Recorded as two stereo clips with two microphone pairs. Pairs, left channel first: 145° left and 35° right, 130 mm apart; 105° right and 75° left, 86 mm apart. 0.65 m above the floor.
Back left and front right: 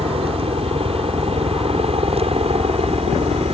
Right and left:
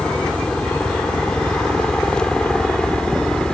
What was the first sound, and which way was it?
A helicopter, 30° right.